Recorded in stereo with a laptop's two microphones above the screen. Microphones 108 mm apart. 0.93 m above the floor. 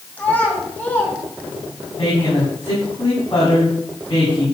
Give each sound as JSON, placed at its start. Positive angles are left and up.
{"t": 0.2, "sound": "a child speaking", "side_deg": 15, "distance_m": 5.0}
{"t": 2.0, "sound": "a woman speaking", "side_deg": 45, "distance_m": 8.0}